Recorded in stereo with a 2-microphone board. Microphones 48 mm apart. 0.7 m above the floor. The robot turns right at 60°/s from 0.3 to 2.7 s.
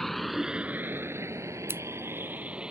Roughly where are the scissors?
Right.